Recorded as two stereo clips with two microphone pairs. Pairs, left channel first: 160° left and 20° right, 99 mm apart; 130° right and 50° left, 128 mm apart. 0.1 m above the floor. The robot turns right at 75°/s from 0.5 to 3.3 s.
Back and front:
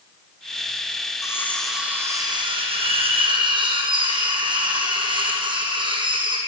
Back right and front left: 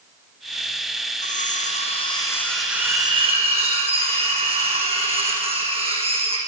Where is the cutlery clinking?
145° right, 3.5 m; by 6.4 s 10° left, 3.5 m.